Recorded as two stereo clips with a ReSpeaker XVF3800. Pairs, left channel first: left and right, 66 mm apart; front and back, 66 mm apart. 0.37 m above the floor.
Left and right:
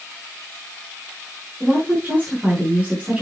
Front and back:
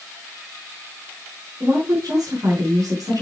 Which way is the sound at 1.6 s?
160° right.